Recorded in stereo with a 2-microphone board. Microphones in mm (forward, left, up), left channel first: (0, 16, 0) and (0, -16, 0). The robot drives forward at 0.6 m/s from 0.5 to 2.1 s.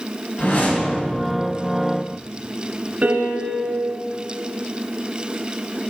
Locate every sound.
0.4 s a whoosh: 55° left (ahead or behind), 2 m; by 1.1 s 60° left (ahead or behind), 1.9 m
3.0 s a piano: 50° right (ahead or behind), 1.3 m